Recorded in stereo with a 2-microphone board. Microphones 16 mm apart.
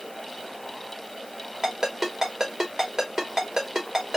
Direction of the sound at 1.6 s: 40° right (ahead or behind).